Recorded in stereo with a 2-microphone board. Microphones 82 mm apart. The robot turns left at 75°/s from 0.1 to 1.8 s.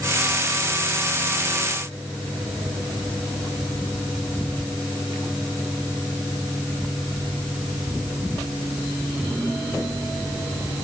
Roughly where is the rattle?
I don't hear a rattle.